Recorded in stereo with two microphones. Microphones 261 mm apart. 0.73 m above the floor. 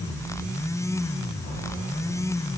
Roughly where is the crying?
No crying in this recording.